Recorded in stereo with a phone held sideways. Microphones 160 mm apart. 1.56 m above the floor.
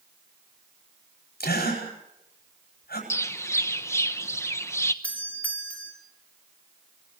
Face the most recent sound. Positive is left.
turn(degrees=10)  # may be behind; listen again after turning